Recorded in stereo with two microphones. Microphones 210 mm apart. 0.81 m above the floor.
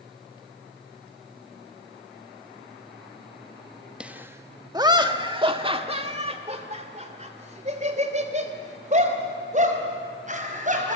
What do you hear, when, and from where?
4.0 s laughter: 5° right (ahead or behind), 0.9 m; by 11.0 s 40° right (ahead or behind), 5.5 m